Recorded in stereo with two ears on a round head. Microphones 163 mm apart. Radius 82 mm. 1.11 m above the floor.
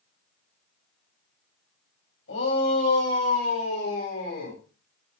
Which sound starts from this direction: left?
A shout, at 2.3 s.